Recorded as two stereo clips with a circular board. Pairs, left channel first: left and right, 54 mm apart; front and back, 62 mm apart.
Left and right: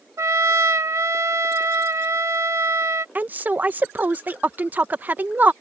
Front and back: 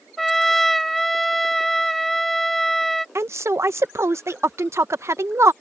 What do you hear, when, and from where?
0.2 s a trumpet: 90° right
3.1 s a woman speaking: 145° right